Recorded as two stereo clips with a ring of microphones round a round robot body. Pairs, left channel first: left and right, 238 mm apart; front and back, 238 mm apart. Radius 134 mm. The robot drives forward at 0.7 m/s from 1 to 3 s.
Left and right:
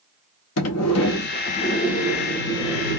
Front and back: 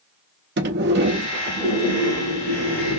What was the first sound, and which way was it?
A sliding door, 125° left.